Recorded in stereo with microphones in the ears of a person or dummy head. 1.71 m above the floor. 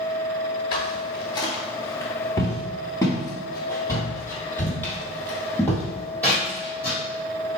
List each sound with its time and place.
0.7 s footsteps: 20° left (ahead or behind), 1.8 m; by 7.0 s 5° left (ahead or behind), 4.5 m